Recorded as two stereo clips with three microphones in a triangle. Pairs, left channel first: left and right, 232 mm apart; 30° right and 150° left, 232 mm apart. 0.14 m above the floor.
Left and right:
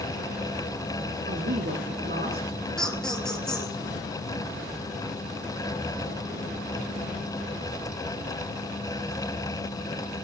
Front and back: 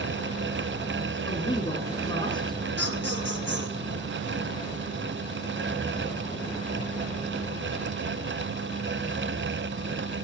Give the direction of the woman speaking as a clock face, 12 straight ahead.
3 o'clock.